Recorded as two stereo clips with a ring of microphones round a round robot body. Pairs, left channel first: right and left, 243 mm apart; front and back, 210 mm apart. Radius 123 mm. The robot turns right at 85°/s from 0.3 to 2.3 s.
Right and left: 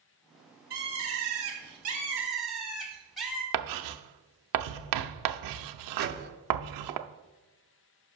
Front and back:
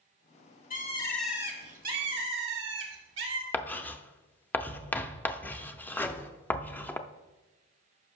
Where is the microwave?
75° left, 0.7 m.